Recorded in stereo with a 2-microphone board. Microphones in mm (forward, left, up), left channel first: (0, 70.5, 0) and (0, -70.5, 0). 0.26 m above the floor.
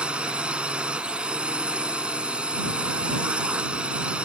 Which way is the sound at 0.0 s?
10° right (ahead or behind).